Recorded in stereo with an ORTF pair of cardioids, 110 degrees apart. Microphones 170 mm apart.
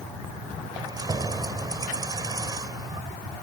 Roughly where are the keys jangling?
Ahead right.